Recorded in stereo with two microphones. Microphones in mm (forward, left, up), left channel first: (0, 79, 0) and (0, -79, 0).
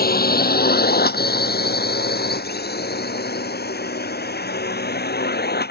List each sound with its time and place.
0.0 s a drone: 70° left (ahead or behind); by 5.7 s 80° left